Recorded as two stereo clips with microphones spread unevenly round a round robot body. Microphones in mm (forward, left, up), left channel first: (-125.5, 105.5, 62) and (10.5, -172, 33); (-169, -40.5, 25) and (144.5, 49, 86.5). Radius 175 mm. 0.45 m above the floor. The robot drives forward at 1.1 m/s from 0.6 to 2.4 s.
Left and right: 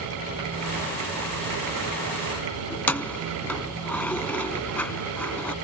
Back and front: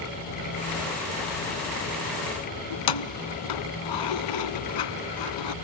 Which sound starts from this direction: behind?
Keys jangling, at 2.7 s.